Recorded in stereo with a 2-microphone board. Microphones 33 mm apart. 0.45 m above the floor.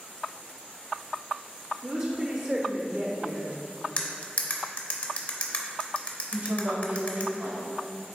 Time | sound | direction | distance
1.8 | a woman speaking | 35° right (ahead or behind) | 0.9 m
4.0 | cutlery clinking | 40° left (ahead or behind) | 0.9 m
6.3 | a woman speaking | 55° right (ahead or behind) | 1.6 m